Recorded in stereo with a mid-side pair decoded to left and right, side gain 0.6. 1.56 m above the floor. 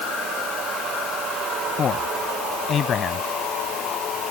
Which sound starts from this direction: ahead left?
A man speaking, at 1.8 s.